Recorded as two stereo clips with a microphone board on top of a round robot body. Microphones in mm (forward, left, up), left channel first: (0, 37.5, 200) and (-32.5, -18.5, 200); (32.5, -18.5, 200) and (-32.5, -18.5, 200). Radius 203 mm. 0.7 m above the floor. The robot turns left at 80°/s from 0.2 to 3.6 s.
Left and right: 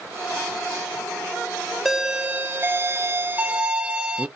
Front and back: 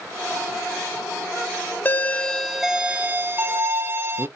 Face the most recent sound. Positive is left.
turn(degrees=180)